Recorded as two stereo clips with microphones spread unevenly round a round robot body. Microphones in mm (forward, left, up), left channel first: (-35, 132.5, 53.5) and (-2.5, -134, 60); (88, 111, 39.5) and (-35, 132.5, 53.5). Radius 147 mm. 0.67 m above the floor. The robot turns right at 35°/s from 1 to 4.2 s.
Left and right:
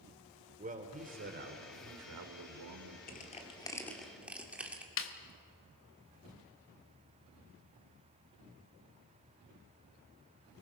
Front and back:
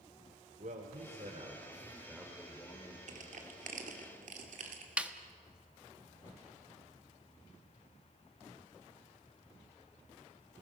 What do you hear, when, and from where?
0.6 s a man speaking: 145° right, 2.5 m; by 3.0 s 75° right, 2.5 m
3.1 s crushing: 150° left, 2 m; by 4.9 s 170° right, 2 m
5.0 s a snare drum: 85° left, 1.5 m